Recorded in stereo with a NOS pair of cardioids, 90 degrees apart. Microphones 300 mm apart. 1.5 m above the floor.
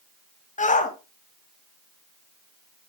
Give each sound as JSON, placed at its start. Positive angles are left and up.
{"t": 0.6, "sound": "a shout", "azimuth_deg": 25, "distance_m": 2.5}